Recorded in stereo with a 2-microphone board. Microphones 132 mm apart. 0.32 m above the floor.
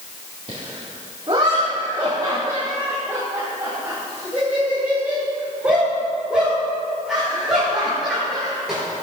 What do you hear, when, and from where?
0.5 s laughter: 45° right (ahead or behind), 3 m; by 8.8 s centre (ahead or behind), 6 m